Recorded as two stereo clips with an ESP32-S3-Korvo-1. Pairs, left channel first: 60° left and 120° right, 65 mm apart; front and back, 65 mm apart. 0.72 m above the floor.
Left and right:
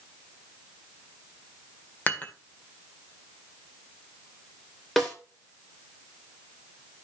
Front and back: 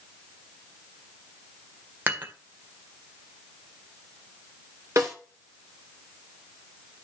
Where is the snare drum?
145° left, 3 m.